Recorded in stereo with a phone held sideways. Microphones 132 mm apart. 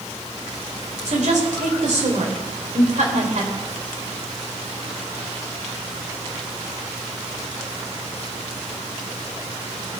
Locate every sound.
1.1 s a woman speaking: 70° right (ahead or behind), 3.5 m